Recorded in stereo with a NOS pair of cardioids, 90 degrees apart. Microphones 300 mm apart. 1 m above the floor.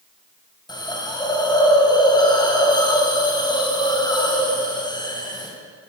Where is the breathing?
I don't hear breathing.